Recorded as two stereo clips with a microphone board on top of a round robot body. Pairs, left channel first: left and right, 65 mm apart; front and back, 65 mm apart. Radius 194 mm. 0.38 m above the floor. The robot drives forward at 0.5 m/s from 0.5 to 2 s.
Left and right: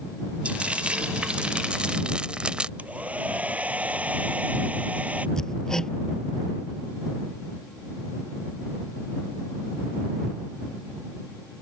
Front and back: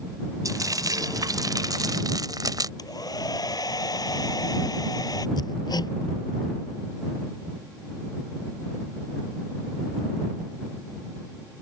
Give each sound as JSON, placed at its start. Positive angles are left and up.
{"t": 0.5, "sound": "frying", "azimuth_deg": -160}
{"t": 2.8, "sound": "a hair dryer", "azimuth_deg": -20}
{"t": 5.4, "sound": "hammering", "azimuth_deg": 10}